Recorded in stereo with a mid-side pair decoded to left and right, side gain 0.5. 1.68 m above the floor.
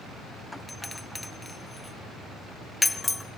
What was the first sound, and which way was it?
A doorbell, 10° left.